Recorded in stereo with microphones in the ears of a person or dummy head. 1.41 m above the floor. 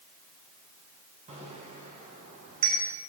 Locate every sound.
1.3 s a bicycle bell: 35° right (ahead or behind), 7 m; by 2.8 s 45° right (ahead or behind), 7 m